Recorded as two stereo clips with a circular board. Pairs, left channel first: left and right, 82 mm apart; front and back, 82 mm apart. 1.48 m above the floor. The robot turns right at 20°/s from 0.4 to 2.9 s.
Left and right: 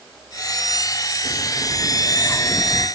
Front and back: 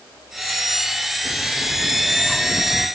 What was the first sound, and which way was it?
A bird, 55° left.